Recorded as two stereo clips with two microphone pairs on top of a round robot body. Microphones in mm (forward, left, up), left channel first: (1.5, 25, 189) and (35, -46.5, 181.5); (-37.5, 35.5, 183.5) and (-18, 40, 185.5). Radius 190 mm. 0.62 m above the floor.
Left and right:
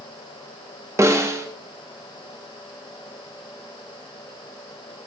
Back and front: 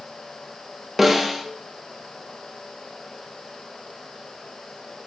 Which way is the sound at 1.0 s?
75° right.